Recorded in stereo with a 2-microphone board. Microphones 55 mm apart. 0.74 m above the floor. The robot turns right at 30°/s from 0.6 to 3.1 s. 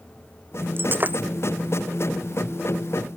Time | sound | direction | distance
0.8 | breaking glass | 45° right (ahead or behind) | ?